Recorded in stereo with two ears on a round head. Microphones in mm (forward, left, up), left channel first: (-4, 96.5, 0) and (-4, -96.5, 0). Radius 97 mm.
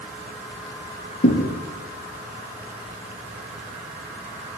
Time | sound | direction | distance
1.2 | a thud | 45° left (ahead or behind) | 4 m